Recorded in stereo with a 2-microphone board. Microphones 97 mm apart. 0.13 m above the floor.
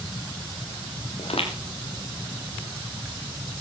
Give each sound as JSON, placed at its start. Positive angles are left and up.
{"t": 1.2, "sound": "footsteps", "side_deg": 80, "distance_m": 5.0}